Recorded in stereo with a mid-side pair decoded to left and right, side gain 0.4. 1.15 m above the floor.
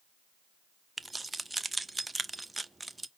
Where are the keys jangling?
20° right, 0.5 m.